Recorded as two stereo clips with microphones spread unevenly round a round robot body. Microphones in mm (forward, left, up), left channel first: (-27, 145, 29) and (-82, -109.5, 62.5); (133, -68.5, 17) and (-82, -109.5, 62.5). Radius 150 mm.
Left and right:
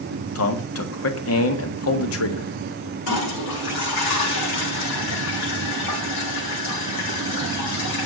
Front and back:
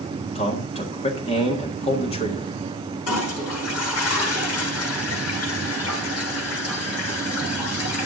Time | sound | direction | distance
0.3 | a man speaking | 70° left | 1.6 m
3.1 | a toilet flushing | 45° left | 3.5 m